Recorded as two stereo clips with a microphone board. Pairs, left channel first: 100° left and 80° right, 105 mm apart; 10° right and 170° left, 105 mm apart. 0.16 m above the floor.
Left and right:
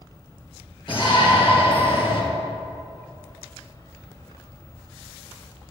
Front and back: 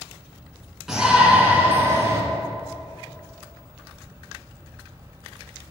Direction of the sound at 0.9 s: 85° left.